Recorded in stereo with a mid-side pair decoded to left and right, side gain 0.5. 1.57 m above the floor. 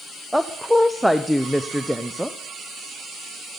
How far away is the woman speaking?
About 0.7 m.